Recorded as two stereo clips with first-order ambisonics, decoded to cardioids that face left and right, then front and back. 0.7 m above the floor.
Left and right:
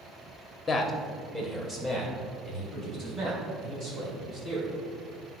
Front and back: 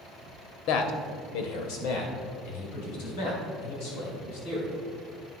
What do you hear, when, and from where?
0.7 s a man speaking: 20° left, 1.0 m; by 4.8 s 25° right, 6 m